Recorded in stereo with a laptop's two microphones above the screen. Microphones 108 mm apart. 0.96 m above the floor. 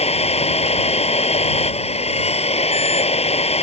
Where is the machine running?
75° left (ahead or behind).